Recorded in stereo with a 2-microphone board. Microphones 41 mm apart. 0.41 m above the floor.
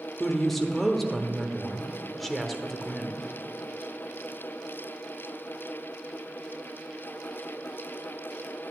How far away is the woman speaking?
About 1.1 m.